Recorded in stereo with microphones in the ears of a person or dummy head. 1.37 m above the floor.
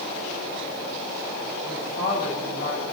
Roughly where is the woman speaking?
Left.